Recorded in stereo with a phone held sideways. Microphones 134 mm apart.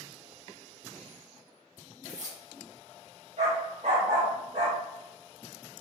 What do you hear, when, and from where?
2.0 s keys jangling: 65° right (ahead or behind), 0.9 m
3.4 s a dog barking: 60° right (ahead or behind), 1.4 m